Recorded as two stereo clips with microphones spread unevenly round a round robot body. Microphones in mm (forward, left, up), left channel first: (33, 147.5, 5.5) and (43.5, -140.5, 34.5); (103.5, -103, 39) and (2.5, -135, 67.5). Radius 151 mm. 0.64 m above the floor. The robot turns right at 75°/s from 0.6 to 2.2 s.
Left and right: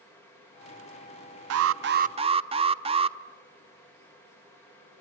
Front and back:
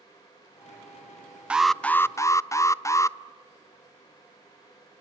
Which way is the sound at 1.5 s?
70° right.